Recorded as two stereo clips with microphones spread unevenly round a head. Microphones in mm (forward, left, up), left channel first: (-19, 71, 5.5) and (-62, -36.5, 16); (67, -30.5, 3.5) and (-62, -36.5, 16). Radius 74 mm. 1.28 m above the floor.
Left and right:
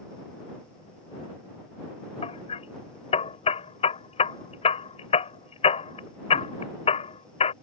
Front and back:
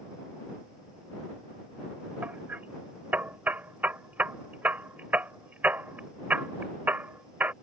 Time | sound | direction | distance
2.2 | hammering | 105° left | ?